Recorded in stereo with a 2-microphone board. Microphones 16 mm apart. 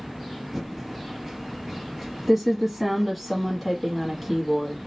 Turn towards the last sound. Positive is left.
turn(degrees=-5)  # may be behind; listen again after turning